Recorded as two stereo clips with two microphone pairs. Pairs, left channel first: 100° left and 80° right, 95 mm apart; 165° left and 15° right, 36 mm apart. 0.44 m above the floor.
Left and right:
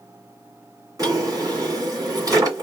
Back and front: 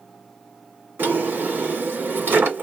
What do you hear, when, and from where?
1.0 s a drawer: 30° right, 1.8 m